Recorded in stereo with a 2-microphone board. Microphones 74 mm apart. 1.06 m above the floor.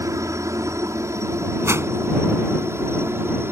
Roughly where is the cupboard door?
I don't hear a cupboard door.